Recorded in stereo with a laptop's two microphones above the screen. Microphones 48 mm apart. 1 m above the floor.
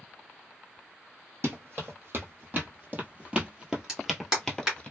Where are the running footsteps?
55° right (ahead or behind), 1.7 m; by 4.9 s 20° left (ahead or behind), 1.0 m.